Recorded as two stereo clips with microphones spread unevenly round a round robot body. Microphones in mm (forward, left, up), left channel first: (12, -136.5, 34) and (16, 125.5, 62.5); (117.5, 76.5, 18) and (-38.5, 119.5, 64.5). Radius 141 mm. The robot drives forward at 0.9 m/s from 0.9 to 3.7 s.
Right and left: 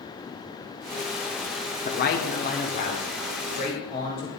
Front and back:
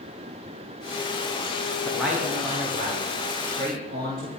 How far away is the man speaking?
About 1.0 m.